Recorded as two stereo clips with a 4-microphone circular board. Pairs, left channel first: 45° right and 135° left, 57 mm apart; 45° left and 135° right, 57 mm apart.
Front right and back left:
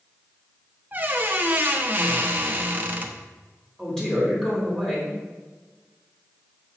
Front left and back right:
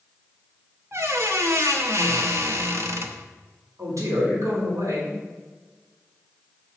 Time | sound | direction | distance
0.9 | a squeak | 170° right | 1.0 m
3.8 | a man speaking | 125° right | 4 m